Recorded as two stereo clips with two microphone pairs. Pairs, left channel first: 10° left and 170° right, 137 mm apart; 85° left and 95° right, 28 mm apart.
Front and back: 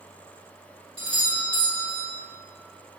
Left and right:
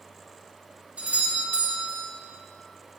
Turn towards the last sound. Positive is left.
turn(degrees=-120)